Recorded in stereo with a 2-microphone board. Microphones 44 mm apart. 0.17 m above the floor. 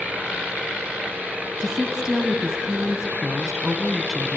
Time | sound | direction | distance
1.6 | a woman speaking | 15° right (ahead or behind) | 1.0 m